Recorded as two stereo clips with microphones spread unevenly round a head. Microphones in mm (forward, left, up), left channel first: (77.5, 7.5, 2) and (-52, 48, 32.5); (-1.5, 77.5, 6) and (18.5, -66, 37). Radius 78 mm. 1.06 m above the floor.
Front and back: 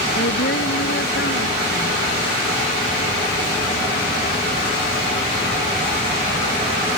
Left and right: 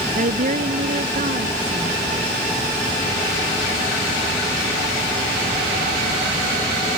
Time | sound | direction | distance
0.1 | a woman speaking | 40° right | ?